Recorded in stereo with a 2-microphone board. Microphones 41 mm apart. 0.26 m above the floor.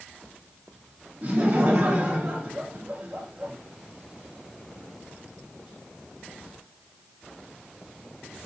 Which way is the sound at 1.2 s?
30° right (ahead or behind).